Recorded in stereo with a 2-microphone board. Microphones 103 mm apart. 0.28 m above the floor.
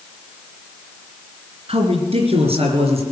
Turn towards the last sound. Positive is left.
turn(degrees=-70)  # may be behind; listen again after turning